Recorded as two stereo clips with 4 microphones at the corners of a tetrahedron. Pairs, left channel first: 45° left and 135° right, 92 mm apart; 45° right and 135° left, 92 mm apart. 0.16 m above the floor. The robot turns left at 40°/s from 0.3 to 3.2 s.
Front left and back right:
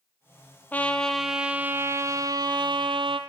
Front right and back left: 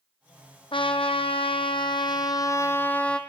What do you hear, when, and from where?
0.7 s a trumpet: 25° right, 1.0 m; by 3.2 s 125° right, 1.0 m